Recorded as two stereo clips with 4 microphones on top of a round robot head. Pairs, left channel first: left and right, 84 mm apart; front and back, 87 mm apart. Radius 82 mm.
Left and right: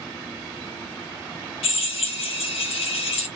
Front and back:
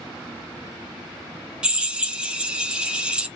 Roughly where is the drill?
Left.